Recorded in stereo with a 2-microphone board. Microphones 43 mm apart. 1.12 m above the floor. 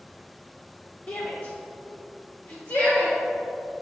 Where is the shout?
35° left (ahead or behind), 0.6 m; by 3.2 s 65° left (ahead or behind), 1.7 m.